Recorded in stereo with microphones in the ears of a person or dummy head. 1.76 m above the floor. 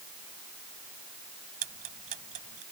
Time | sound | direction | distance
1.6 | ticking | 45° right (ahead or behind) | ?